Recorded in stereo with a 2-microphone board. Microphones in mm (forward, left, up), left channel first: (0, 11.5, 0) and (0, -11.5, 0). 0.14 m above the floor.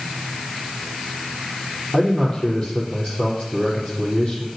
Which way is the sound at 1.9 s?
35° left (ahead or behind).